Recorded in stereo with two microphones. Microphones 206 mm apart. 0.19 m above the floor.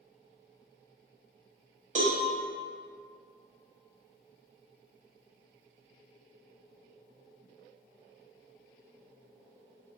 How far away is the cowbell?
About 0.6 m.